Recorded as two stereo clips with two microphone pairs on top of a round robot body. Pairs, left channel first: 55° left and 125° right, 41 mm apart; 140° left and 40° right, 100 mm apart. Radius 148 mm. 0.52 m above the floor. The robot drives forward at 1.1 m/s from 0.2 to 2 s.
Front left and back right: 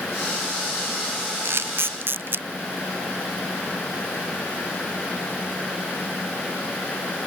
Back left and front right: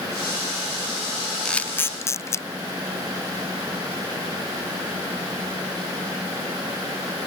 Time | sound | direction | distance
1.4 | a camera shutter | 135° right | ?